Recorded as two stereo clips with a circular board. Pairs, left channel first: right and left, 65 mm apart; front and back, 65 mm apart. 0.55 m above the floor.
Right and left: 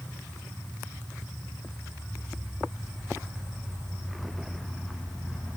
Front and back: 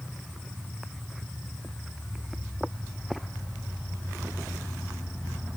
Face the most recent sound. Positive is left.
No sound to turn to.